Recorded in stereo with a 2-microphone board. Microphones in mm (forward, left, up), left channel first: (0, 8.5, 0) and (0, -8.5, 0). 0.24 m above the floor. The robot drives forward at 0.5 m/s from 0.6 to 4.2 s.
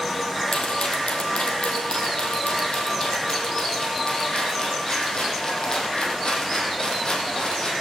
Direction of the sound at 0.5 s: 85° left.